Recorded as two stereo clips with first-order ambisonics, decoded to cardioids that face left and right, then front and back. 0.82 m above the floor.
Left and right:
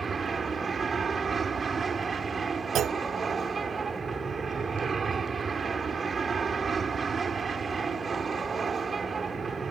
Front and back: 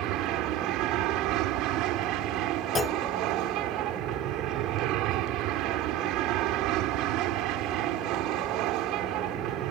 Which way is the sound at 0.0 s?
165° right.